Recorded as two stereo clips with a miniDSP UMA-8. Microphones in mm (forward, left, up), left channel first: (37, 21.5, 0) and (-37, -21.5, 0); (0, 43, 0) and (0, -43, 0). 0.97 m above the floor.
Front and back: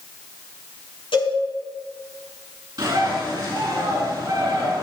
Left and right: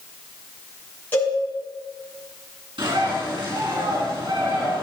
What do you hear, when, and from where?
1.1 s a cowbell: 20° left, 6.5 m
2.8 s a bird: 105° right, 5 m